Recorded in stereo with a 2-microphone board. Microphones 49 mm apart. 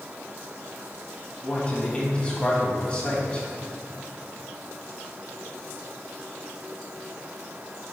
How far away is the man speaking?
About 1.5 m.